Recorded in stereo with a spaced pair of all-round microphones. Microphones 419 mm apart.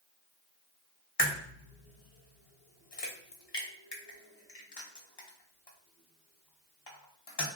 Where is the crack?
70° left (ahead or behind), 0.8 m.